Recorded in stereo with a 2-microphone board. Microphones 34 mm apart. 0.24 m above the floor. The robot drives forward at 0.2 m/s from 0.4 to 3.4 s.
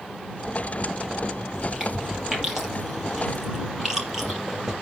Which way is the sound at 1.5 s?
10° right (ahead or behind).